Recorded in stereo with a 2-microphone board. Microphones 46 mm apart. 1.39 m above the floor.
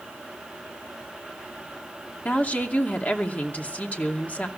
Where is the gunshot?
No gunshot in this recording.